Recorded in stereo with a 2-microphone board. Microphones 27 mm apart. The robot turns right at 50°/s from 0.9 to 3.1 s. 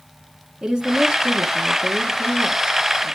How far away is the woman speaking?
About 1.3 m.